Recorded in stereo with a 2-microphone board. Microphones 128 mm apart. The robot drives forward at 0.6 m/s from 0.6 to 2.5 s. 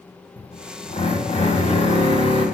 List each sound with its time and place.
0.4 s a drill: 55° left (ahead or behind), 1.4 m; by 2.5 s 40° left (ahead or behind), 1.7 m